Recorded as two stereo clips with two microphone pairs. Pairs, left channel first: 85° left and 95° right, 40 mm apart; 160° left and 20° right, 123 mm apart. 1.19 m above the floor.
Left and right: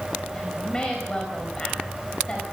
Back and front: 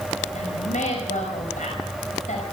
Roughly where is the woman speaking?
Behind left.